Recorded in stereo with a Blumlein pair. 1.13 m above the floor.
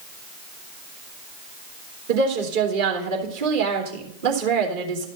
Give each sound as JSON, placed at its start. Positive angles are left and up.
{"t": 2.1, "sound": "a woman speaking", "azimuth_deg": -55, "distance_m": 3.0}